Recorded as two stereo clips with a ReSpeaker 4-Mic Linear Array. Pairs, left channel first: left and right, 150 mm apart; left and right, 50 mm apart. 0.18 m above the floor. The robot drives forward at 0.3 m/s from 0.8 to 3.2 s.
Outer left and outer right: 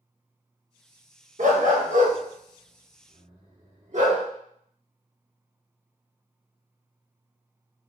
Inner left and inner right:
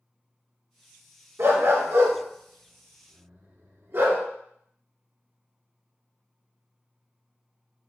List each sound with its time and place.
1.4 s a dog barking: 65° right (ahead or behind), 1.1 m; by 4.2 s 55° right (ahead or behind), 1.2 m